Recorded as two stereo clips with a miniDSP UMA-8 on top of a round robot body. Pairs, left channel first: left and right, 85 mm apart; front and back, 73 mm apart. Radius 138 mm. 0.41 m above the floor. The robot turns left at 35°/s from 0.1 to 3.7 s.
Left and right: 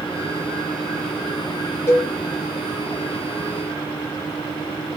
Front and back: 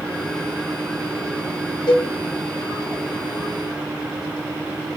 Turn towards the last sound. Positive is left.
turn(degrees=-35)